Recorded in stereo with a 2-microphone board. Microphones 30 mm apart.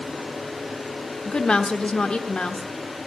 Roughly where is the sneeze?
I don't hear a sneeze.